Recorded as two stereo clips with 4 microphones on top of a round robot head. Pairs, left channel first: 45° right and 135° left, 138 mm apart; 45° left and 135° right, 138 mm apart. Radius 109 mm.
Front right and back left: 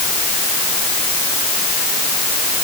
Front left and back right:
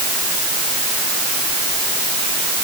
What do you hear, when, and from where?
Only background noise.